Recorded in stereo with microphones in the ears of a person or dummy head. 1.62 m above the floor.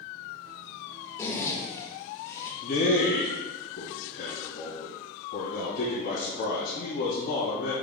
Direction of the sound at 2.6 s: 50° left (ahead or behind).